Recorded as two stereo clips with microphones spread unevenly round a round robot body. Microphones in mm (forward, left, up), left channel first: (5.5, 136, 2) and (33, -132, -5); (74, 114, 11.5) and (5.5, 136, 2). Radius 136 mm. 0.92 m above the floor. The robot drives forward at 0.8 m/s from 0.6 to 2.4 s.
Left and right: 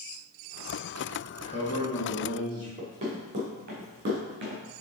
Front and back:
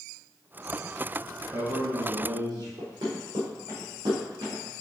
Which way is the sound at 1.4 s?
165° left.